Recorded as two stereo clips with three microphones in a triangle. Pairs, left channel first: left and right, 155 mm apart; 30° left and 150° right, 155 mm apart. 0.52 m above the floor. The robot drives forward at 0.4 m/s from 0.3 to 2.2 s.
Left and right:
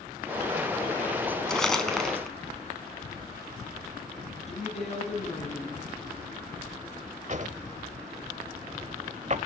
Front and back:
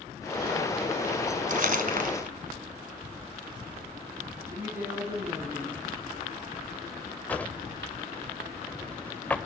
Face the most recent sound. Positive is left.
turn(degrees=-50)